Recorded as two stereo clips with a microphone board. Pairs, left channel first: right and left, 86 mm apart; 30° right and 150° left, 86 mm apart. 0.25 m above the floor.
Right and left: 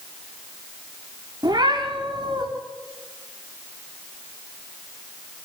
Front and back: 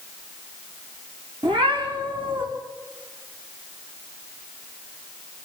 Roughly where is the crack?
No crack in this recording.